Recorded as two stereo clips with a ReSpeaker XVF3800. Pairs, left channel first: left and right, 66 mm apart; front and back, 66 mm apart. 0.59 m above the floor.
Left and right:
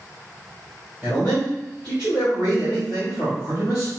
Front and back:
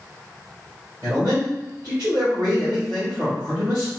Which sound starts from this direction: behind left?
A man speaking, at 1.0 s.